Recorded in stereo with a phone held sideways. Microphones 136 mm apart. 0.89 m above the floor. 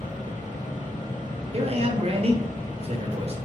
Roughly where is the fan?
Left.